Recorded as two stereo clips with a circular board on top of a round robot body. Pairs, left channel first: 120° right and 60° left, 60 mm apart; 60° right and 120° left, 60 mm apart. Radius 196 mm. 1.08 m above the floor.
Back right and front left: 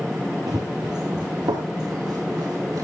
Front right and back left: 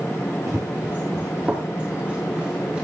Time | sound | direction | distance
0.5 | running footsteps | 80° left | 1.1 m